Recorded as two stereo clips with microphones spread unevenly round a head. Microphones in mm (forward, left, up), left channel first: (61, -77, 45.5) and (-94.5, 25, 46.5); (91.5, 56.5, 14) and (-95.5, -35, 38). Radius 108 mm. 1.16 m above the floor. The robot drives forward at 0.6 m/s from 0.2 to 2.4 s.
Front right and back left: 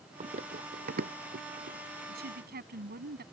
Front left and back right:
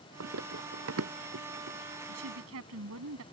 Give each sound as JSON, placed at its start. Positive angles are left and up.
{"t": 0.2, "sound": "running footsteps", "azimuth_deg": -160}
{"t": 2.1, "sound": "a woman speaking", "azimuth_deg": -175}